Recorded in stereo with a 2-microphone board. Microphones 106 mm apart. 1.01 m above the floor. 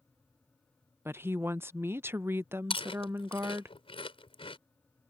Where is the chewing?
60° left (ahead or behind).